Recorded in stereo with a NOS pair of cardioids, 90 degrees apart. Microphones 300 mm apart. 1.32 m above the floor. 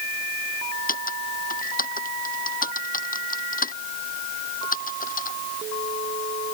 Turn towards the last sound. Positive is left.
turn(degrees=25)